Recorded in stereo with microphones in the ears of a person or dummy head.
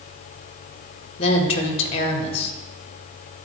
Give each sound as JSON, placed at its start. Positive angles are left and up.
{"t": 1.2, "sound": "a woman speaking", "side_deg": 40, "distance_m": 1.2}